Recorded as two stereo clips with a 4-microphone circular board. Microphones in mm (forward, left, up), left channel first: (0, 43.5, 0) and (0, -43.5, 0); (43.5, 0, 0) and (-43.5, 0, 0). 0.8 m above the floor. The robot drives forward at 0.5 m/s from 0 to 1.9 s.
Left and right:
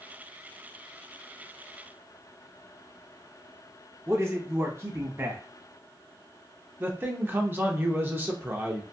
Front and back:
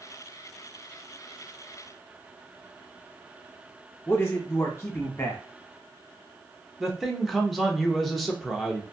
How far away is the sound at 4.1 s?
About 0.8 m.